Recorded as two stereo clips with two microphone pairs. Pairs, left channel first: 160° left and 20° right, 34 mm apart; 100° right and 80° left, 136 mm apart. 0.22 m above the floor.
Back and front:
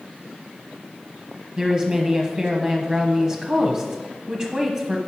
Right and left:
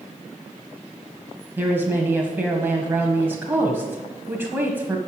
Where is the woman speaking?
25° left, 1.2 m.